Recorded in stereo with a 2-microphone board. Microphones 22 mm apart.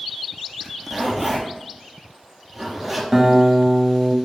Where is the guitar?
20° right (ahead or behind), 1.0 m.